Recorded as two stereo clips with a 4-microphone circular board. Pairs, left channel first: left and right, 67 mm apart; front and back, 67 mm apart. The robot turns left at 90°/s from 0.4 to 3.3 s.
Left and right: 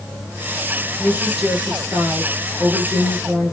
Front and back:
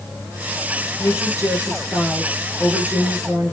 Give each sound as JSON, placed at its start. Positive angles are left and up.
{"t": 1.0, "sound": "a woman speaking", "azimuth_deg": 35, "distance_m": 2.5}